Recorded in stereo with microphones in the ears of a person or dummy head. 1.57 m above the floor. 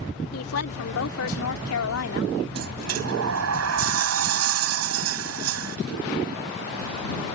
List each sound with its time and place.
0.3 s a woman speaking: 85° left; by 2.3 s 80° left
2.5 s a sliding door: 75° right (ahead or behind)